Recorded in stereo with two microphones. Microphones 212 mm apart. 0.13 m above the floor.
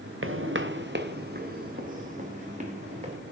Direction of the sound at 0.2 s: 75° right (ahead or behind).